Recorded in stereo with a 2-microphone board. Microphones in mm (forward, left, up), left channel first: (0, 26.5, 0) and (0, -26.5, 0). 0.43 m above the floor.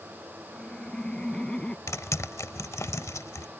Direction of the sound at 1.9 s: 70° left (ahead or behind).